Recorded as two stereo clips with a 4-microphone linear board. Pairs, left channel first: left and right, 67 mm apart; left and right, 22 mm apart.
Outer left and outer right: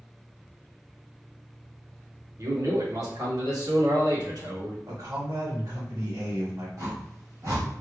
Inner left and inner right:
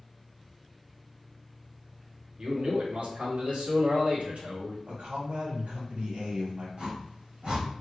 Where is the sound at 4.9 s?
70° right (ahead or behind), 2.0 m.